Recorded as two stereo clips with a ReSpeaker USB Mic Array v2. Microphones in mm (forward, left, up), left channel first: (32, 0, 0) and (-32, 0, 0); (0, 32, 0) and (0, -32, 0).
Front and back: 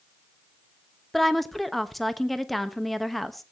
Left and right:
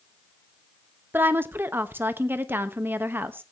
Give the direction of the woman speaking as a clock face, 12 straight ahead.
3 o'clock.